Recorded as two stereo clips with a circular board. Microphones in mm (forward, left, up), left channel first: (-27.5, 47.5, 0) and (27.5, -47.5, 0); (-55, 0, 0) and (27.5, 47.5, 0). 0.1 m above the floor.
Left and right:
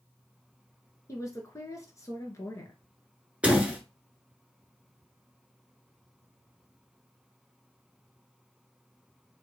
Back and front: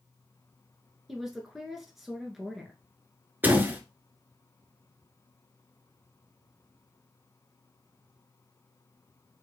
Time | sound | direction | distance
1.1 | a woman speaking | 115° left | 1.2 m
3.4 | a door slam | straight ahead | 1.0 m